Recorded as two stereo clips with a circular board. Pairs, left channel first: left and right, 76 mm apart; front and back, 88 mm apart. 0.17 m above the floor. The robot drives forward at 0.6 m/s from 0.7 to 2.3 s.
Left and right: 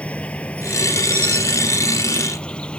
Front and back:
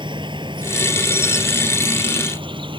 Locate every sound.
0.0 s an insect: 160° left; by 2.8 s 165° left